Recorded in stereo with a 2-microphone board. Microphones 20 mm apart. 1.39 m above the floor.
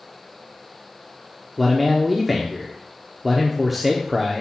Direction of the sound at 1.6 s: 5° right (ahead or behind).